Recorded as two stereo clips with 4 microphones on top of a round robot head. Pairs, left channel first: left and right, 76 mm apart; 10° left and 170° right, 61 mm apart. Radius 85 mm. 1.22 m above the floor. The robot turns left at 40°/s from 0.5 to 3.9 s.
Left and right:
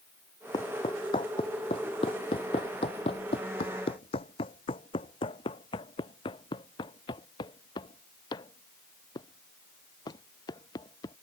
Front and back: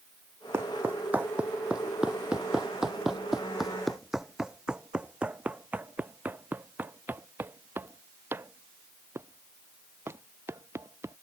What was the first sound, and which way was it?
Footsteps, 140° left.